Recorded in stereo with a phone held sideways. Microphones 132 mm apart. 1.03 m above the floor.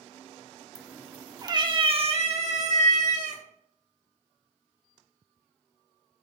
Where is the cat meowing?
5° right (ahead or behind), 0.7 m; by 3.4 s 70° right (ahead or behind), 1.6 m.